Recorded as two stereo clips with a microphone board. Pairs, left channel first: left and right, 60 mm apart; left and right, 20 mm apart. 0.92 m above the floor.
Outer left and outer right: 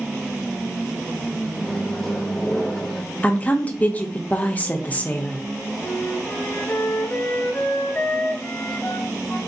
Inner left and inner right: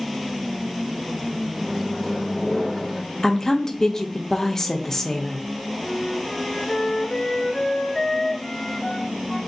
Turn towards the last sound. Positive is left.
turn(degrees=40)  # may be behind; listen again after turning